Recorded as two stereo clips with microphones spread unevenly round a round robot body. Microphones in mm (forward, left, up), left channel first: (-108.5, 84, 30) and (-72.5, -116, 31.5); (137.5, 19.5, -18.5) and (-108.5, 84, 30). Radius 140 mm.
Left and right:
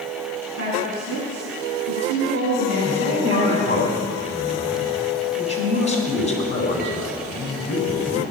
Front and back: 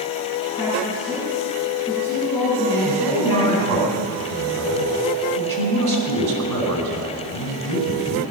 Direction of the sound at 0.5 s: 105° right.